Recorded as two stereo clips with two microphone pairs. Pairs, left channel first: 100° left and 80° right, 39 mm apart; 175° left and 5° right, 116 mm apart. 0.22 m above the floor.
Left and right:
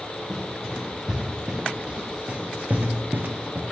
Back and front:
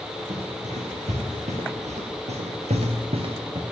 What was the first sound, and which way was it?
Running footsteps, straight ahead.